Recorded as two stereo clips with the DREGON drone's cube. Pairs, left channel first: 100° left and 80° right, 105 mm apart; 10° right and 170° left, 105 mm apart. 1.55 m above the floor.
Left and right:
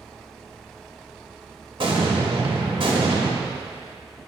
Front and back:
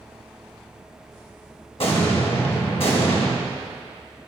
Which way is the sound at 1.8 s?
40° right.